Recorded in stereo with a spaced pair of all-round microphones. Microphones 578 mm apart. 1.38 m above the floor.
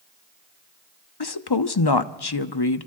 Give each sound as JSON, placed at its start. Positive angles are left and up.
{"t": 1.2, "sound": "a woman speaking", "side_deg": 45, "distance_m": 0.7}